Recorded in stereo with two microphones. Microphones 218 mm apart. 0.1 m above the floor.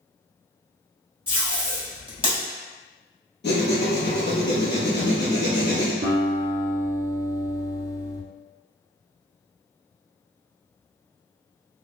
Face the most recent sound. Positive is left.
turn(degrees=-55)  # may be behind; listen again after turning